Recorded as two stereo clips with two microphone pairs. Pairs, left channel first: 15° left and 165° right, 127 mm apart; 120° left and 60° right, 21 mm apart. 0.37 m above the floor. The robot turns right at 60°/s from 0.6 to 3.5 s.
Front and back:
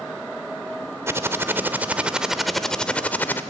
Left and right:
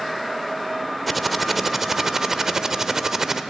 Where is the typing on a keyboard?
160° right, 0.8 m; by 3.4 s 20° right, 0.8 m.